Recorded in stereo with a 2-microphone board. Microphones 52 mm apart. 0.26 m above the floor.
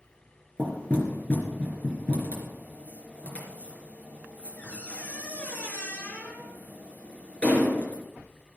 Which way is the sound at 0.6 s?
25° left (ahead or behind).